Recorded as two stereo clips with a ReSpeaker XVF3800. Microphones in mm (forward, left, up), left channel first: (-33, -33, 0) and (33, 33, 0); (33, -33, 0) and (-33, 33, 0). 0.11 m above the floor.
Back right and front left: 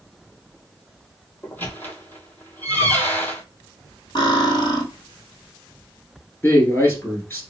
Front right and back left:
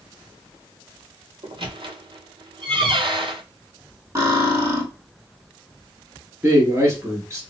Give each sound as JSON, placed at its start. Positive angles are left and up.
{"t": 1.4, "sound": "a squeak", "azimuth_deg": 155, "distance_m": 0.7}
{"t": 4.2, "sound": "cutlery clinking", "azimuth_deg": -170, "distance_m": 1.7}
{"t": 6.4, "sound": "a man speaking", "azimuth_deg": 175, "distance_m": 1.3}